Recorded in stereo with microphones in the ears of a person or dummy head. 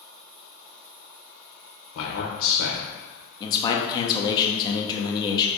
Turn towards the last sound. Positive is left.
turn(degrees=25)  # may be behind; listen again after turning